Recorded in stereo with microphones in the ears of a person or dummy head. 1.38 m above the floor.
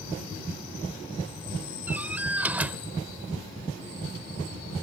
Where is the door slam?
10° right (ahead or behind).